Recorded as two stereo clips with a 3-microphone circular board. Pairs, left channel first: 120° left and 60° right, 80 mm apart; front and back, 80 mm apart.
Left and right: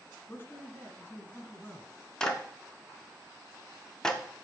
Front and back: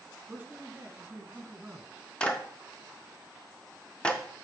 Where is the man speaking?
135° left, 1.3 m.